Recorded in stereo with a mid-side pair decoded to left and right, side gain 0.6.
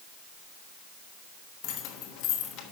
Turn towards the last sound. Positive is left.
turn(degrees=70)